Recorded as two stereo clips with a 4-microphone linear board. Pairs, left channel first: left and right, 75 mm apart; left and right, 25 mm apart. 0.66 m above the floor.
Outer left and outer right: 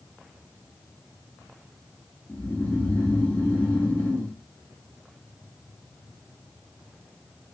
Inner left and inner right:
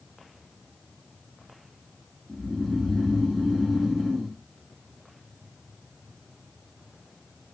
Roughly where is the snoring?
Left.